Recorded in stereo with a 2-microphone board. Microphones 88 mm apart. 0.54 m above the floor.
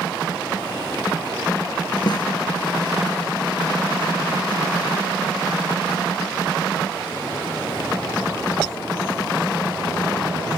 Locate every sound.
2.1 s a snare drum: 55° left (ahead or behind)